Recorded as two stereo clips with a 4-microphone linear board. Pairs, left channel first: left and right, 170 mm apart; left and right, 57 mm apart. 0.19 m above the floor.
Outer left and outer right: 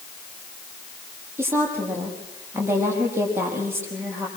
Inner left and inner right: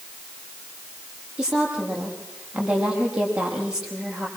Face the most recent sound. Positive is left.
turn(degrees=-15)  # may be behind; listen again after turning